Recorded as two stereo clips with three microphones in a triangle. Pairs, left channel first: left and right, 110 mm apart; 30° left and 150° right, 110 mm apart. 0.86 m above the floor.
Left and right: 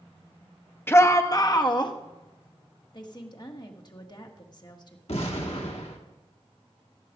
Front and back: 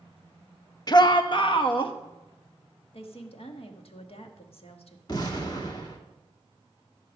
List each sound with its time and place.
0.9 s a shout: 35° left, 0.8 m; by 1.9 s 55° left, 1.3 m
2.9 s a woman speaking: 45° left, 1.4 m
5.1 s an explosion: 75° left, 1.6 m